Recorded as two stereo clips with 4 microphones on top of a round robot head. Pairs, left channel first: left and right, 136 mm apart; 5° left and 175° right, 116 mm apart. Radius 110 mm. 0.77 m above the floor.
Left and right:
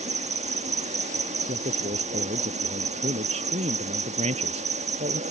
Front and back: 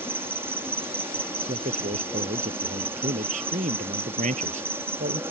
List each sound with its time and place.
0.0 s an insect: 105° right
1.5 s a man speaking: 140° right